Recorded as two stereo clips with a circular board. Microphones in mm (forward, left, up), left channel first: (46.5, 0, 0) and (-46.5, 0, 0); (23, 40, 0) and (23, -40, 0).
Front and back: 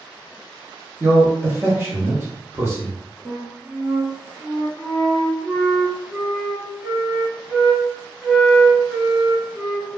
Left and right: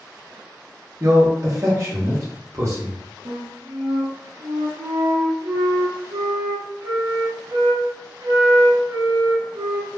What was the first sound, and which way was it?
A man speaking, 125° right.